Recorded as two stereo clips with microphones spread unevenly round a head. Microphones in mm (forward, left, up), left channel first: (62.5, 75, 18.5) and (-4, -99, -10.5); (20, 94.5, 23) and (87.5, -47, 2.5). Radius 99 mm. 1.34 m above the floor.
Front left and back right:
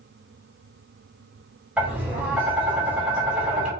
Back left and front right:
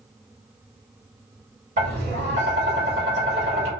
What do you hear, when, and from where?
1.8 s tapping: 25° right, 1.9 m